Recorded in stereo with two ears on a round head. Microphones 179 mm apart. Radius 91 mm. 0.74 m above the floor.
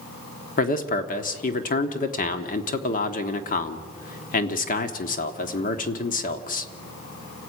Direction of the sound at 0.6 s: 45° left (ahead or behind).